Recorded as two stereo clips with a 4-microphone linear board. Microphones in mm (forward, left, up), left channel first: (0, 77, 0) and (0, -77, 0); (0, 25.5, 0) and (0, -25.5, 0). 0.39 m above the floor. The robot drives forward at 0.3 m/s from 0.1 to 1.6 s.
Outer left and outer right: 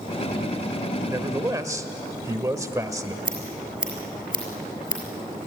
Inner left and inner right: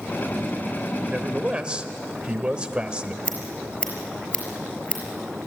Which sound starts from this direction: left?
Scissors, at 3.2 s.